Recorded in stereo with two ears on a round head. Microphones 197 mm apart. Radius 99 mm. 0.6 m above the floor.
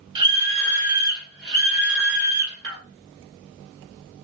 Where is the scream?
20° right (ahead or behind), 1.3 m; by 2.8 s 50° right (ahead or behind), 1.8 m.